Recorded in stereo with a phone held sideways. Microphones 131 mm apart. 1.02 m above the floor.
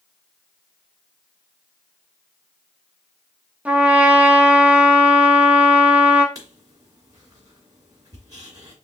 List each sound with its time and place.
3.6 s a trumpet: 10° right (ahead or behind), 0.8 m
6.3 s writing: 30° right (ahead or behind), 1.8 m